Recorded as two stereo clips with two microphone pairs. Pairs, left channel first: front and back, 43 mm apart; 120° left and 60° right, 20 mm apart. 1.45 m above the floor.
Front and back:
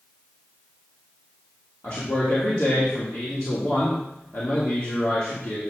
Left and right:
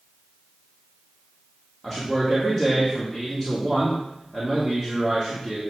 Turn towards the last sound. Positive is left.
turn(degrees=20)